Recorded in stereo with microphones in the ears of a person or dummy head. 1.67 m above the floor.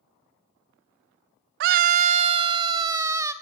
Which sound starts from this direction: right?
A scream, at 1.6 s.